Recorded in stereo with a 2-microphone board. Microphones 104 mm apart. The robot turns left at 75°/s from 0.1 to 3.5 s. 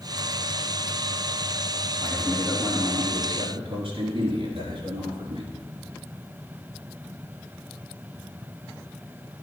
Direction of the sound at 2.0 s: 35° left.